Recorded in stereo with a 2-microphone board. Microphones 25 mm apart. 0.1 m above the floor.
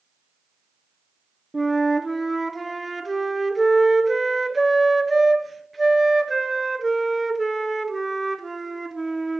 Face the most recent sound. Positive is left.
turn(degrees=0)  # may be behind; listen again after turning